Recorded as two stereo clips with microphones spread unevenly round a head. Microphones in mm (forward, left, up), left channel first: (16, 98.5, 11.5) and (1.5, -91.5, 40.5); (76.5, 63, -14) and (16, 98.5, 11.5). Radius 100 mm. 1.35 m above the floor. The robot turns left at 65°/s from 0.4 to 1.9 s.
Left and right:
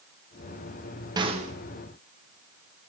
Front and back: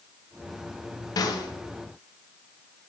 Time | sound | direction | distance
1.2 | a snare drum | 20° right | 0.7 m